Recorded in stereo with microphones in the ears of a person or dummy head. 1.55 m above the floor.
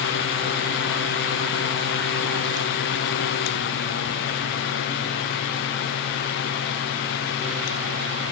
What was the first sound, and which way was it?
Only background noise.